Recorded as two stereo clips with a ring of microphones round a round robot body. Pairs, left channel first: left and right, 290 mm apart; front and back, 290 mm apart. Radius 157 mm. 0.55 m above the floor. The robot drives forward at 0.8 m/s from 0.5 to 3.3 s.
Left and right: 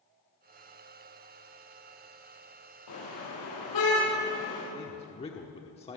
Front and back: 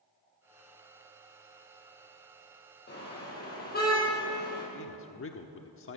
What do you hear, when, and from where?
2.9 s a car horn: 55° left, 8.5 m; by 4.6 s 60° left, 8 m
4.7 s a man speaking: 25° left, 1.1 m